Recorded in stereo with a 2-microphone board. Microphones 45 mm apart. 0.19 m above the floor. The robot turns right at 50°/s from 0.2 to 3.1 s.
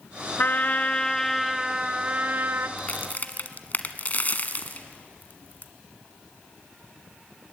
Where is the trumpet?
125° left, 0.9 m; by 2.7 s 120° right, 0.9 m.